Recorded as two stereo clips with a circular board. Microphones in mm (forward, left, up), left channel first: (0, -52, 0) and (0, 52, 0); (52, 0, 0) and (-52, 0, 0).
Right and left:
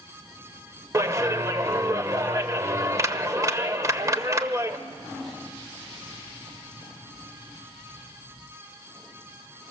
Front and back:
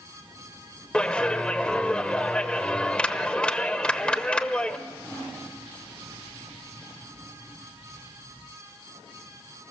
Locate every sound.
0.9 s a clap: 75° left, 0.9 m